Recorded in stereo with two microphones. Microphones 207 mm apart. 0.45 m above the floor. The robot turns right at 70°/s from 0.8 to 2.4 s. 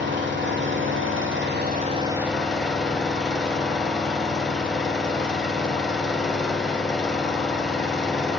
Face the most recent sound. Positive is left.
turn(degrees=5)